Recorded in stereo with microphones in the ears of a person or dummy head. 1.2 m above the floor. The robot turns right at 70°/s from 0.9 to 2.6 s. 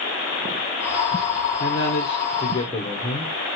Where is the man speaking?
80° left, 0.9 m; by 3.3 s 150° left, 0.9 m.